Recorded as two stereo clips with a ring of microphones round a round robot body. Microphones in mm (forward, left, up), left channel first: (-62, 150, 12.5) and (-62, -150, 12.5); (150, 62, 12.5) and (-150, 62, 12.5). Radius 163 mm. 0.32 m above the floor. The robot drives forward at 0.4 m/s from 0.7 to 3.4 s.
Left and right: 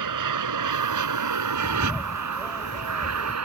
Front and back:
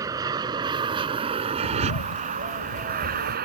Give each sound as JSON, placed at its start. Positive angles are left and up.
{"t": 0.0, "sound": "an aircraft", "azimuth_deg": -100}
{"t": 1.6, "sound": "a bird", "azimuth_deg": -5}